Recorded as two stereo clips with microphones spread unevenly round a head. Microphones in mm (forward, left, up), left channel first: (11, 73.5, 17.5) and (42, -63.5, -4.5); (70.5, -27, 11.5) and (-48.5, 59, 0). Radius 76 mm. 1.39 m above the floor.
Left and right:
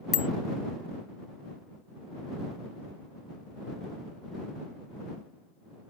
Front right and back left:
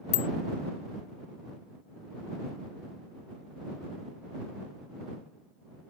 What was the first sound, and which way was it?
A bicycle bell, 15° left.